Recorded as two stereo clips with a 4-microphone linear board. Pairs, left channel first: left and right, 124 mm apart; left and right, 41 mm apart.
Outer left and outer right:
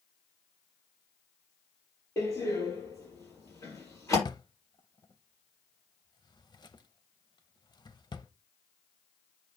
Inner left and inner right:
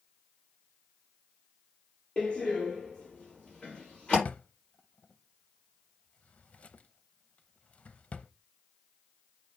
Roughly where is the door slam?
Left.